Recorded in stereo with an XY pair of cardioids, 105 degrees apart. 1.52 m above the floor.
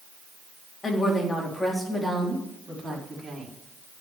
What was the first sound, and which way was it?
A woman speaking, 25° left.